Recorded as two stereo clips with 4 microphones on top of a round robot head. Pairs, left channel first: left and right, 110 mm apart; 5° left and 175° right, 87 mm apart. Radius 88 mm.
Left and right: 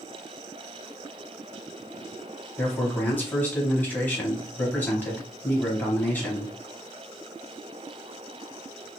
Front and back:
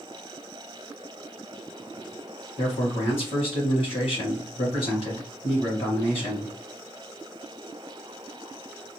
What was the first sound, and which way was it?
A man speaking, 15° left.